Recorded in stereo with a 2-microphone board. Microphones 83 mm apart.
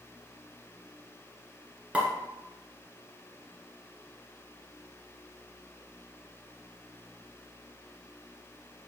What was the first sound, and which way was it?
A pop, 15° right (ahead or behind).